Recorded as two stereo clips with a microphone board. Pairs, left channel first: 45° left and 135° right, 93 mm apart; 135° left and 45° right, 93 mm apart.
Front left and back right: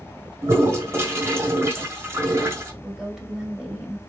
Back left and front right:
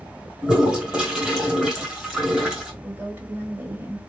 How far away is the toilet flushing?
About 1.6 m.